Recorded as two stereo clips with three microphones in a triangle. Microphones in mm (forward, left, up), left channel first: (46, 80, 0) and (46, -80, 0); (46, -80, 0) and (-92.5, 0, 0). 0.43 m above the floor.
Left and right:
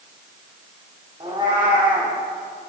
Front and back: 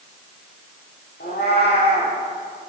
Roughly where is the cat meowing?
Ahead right.